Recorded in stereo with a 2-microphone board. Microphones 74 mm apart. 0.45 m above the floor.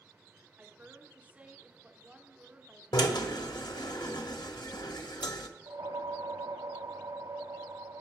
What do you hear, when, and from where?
0.6 s a woman speaking: 20° right (ahead or behind), 0.9 m
2.9 s a drill: 70° left (ahead or behind), 0.8 m
5.7 s a whoosh: 65° right (ahead or behind), 0.6 m